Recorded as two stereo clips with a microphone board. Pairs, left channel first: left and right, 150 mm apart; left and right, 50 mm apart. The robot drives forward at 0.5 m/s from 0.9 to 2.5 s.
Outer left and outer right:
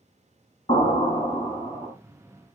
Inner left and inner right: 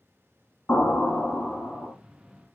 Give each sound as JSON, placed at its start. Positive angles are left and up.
{"t": 0.7, "sound": "an explosion", "side_deg": 40, "distance_m": 1.0}